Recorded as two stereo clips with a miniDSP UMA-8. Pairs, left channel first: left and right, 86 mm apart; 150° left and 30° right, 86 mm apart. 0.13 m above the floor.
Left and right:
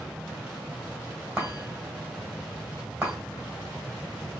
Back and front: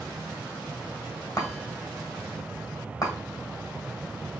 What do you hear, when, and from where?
1.4 s a chime: 165° right, 2.5 m